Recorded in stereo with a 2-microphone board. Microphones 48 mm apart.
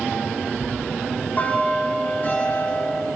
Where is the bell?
35° left (ahead or behind), 8 m.